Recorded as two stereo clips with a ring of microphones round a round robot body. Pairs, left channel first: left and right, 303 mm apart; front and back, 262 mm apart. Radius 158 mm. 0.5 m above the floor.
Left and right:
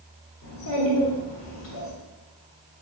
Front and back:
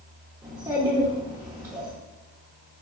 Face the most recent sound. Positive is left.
turn(degrees=105)